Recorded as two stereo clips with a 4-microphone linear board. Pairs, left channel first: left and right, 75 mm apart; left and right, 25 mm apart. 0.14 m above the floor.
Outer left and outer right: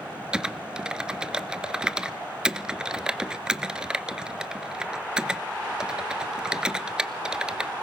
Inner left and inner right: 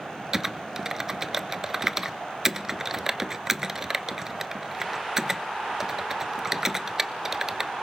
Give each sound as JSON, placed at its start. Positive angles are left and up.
{"t": 0.3, "sound": "typing on a keyboard", "side_deg": -10, "distance_m": 0.6}